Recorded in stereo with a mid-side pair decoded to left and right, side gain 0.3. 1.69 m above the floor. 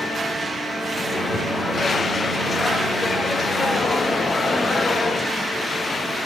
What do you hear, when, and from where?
0.9 s a microwave: 50° left, 4 m